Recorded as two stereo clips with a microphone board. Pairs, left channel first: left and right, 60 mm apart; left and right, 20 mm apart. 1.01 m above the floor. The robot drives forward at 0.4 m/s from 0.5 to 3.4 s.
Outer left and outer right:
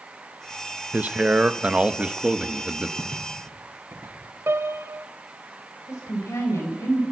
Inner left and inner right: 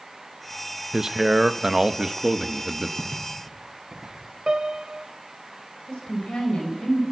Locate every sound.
0.9 s a man speaking: 30° right (ahead or behind), 0.8 m; by 2.9 s 15° right (ahead or behind), 1.5 m
3.0 s footsteps: 45° right (ahead or behind), 5 m; by 4.2 s 50° right (ahead or behind), 5 m
4.5 s a piano: 45° right (ahead or behind), 1.0 m
5.9 s a woman speaking: 55° left (ahead or behind), 4 m